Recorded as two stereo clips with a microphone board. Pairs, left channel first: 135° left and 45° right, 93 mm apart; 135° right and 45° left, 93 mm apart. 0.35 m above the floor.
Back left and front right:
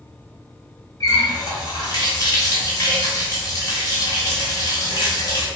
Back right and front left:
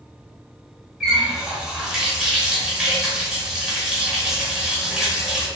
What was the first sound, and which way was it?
A running tap, 125° left.